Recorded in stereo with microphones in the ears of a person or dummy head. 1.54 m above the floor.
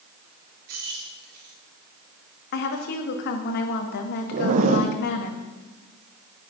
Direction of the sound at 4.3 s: 50° right (ahead or behind).